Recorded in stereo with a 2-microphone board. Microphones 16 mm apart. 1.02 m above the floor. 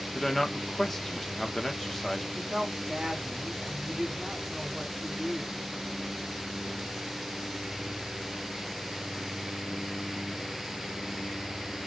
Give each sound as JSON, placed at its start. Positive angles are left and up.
{"t": 0.1, "sound": "a man speaking", "side_deg": 25, "distance_m": 1.0}
{"t": 2.3, "sound": "a woman speaking", "side_deg": -65, "distance_m": 1.9}